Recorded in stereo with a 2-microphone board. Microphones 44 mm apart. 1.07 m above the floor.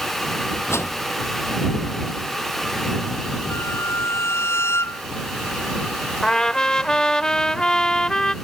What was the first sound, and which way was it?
A whoosh, 85° left.